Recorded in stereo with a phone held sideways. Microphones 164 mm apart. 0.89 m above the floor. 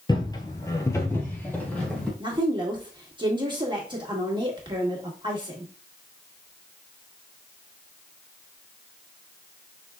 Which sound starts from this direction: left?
Footsteps, at 0.1 s.